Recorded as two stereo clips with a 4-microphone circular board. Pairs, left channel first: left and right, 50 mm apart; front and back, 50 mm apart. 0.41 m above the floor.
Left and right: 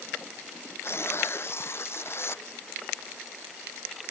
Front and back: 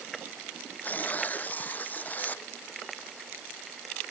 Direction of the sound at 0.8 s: 55° left.